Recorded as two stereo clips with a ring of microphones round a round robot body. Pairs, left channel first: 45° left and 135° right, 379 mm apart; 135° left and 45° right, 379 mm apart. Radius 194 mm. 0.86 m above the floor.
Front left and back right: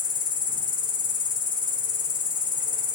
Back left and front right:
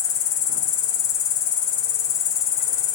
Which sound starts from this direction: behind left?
An insect, at 0.0 s.